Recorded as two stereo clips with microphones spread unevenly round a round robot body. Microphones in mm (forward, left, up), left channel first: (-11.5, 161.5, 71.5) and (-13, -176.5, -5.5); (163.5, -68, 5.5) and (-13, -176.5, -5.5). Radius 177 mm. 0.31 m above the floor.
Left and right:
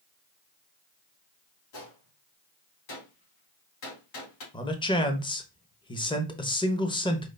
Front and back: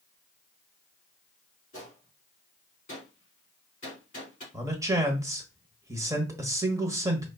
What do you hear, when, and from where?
1.7 s a gunshot: 95° left, 3.5 m
4.5 s a man speaking: straight behind, 0.9 m